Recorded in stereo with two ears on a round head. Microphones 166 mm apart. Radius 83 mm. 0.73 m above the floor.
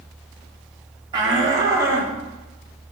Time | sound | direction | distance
1.1 | a shout | 25° right (ahead or behind) | 1.4 m